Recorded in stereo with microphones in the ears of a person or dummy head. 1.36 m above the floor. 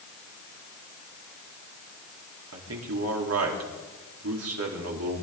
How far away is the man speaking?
About 4 m.